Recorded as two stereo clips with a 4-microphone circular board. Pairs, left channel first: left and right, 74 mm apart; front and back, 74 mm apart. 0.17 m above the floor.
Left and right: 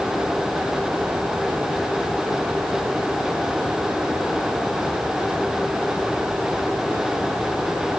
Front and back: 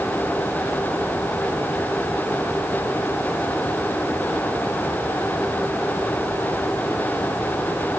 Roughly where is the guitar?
I don't hear a guitar.